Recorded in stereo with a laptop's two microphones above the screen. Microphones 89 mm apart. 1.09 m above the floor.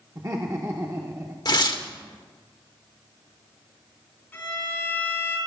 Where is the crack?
No crack in this recording.